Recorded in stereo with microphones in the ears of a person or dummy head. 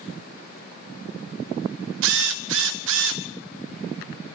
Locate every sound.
2.0 s a drill: 75° right (ahead or behind), 0.7 m